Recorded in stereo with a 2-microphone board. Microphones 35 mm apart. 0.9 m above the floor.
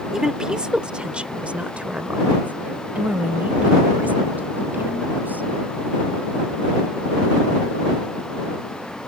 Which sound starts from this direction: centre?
A woman speaking, at 0.1 s.